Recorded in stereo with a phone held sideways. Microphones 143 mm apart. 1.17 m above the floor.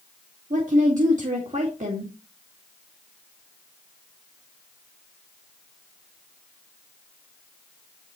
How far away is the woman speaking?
About 2.0 m.